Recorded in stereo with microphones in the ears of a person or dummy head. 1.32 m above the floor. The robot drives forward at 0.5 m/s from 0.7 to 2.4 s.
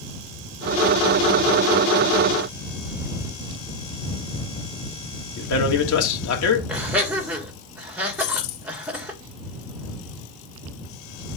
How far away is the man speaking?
About 1.6 m.